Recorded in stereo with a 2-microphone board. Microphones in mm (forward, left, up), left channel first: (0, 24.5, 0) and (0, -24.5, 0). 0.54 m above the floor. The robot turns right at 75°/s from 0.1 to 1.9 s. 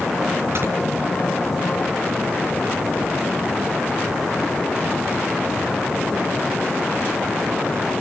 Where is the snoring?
65° right (ahead or behind), 4.5 m; by 0.7 s 55° right (ahead or behind), 4.5 m.